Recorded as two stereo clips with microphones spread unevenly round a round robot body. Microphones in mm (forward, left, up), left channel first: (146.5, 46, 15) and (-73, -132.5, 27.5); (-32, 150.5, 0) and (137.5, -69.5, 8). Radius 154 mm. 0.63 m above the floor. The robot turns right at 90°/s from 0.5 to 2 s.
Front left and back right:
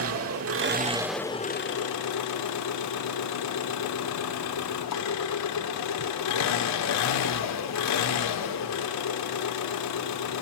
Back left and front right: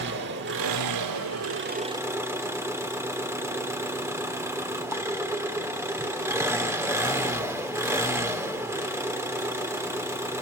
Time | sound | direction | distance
0.0 | an engine running | 105° right | 1.8 m